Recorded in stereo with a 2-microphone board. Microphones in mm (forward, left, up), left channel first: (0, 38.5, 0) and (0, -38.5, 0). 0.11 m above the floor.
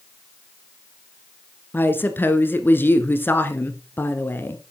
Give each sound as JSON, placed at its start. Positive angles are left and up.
{"t": 1.7, "sound": "a woman speaking", "side_deg": 25, "distance_m": 1.3}